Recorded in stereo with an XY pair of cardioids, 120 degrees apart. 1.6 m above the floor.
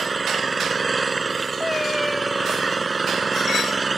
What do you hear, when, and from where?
0.0 s an engine running: 20° right
1.6 s a cat meowing: 10° left